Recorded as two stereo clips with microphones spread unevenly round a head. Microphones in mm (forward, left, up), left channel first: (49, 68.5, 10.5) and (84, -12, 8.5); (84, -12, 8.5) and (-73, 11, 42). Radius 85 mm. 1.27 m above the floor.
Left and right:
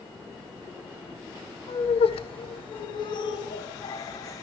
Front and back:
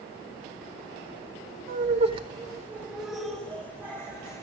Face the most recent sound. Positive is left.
turn(degrees=65)